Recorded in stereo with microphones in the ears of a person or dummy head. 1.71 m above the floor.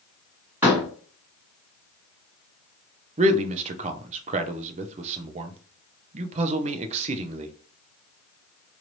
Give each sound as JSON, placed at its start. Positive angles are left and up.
{"t": 0.6, "sound": "a door slam", "side_deg": -5, "distance_m": 1.7}
{"t": 3.2, "sound": "a man speaking", "side_deg": -25, "distance_m": 0.6}